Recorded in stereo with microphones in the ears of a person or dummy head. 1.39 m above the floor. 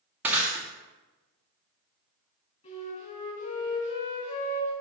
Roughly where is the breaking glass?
Centre.